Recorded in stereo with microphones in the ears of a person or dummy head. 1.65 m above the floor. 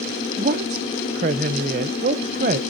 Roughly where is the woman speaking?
Right.